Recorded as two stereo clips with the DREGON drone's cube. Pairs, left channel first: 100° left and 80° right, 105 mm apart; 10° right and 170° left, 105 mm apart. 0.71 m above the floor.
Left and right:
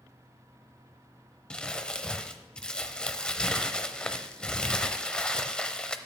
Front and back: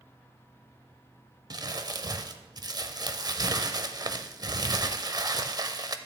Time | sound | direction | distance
1.5 | crumpling | 175° left | 0.6 m